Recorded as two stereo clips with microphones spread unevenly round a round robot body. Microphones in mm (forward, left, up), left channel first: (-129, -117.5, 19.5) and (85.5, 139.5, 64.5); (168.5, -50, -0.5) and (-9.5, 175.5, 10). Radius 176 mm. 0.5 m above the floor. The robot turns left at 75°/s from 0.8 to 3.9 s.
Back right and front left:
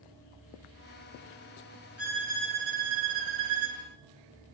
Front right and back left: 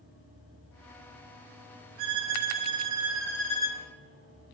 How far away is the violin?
About 4.5 m.